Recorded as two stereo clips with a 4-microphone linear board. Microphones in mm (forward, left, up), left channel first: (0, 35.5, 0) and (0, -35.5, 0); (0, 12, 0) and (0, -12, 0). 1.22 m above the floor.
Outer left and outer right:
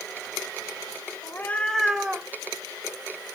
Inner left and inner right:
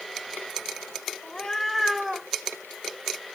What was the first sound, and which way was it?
A cat meowing, 35° left (ahead or behind).